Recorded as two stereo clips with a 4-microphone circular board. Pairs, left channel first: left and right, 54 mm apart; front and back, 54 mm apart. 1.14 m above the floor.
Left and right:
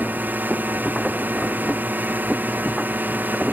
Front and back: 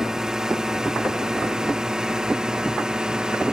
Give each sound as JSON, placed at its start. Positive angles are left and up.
{"t": 0.0, "sound": "a drone", "azimuth_deg": -105}